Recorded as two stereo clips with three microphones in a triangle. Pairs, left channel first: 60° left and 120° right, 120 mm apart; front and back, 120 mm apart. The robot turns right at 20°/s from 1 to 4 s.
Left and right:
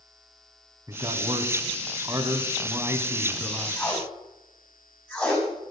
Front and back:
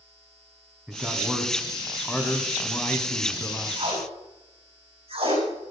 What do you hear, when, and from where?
0.9 s a man speaking: 100° right, 1.8 m; by 3.8 s 45° right, 1.8 m
3.8 s tape being pulled: 135° left, 6 m; by 5.7 s 140° left, 6 m